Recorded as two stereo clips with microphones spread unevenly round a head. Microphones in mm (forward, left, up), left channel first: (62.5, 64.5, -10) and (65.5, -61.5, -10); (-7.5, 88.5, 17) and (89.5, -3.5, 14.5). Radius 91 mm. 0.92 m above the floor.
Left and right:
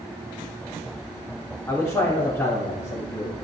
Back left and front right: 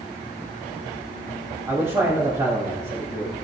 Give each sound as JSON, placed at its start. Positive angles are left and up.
{"t": 1.7, "sound": "a man speaking", "azimuth_deg": 20, "distance_m": 3.0}